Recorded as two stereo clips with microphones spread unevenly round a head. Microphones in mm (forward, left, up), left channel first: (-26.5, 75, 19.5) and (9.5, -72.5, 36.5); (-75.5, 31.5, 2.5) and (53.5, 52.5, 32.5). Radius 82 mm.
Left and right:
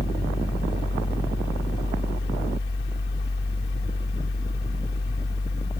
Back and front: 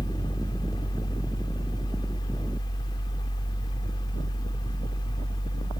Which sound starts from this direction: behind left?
A fan, at 0.0 s.